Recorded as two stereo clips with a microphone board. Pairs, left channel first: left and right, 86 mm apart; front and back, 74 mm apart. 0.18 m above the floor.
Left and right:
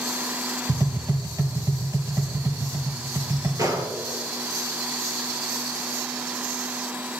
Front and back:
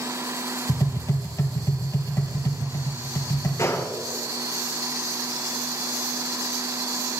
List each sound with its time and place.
0.7 s tapping: 45° right, 2.5 m
3.6 s a gunshot: 45° right, 1.8 m